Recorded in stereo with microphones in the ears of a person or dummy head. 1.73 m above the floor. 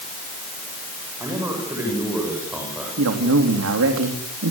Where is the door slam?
I don't hear a door slam.